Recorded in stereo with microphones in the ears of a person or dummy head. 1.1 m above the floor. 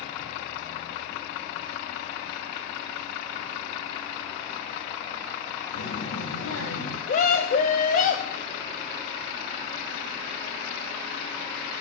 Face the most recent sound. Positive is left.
turn(degrees=45)  # may be behind; listen again after turning